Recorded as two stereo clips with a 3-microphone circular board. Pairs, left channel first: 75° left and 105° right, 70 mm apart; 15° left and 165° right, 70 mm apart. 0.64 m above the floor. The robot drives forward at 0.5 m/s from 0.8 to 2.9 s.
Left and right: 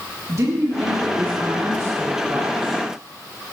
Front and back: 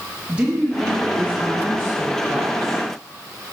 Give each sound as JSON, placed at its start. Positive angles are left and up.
{"t": 0.3, "sound": "a woman speaking", "azimuth_deg": -95, "distance_m": 1.1}